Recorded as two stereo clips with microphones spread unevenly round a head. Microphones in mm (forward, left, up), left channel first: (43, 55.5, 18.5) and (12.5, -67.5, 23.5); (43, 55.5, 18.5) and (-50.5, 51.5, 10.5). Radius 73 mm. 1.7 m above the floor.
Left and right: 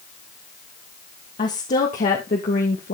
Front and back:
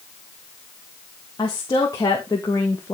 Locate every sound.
1.4 s a woman speaking: 50° left, 3 m; by 2.9 s 60° left, 2 m